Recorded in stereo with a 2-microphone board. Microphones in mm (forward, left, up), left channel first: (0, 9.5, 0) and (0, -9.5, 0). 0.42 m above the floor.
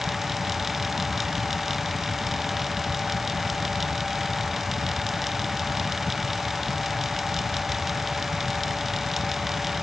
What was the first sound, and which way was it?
Only background noise.